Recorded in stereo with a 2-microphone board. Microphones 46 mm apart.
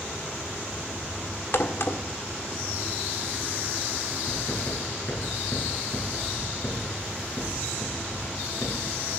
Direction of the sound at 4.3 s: 55° left (ahead or behind).